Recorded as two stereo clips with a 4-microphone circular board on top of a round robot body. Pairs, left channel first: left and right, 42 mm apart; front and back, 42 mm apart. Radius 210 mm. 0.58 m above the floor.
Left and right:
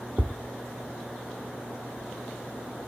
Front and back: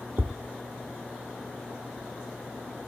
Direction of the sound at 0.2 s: 150° right.